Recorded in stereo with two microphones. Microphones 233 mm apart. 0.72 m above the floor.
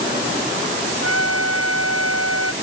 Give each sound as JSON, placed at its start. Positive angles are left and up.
{"t": 1.0, "sound": "a trumpet", "side_deg": -75}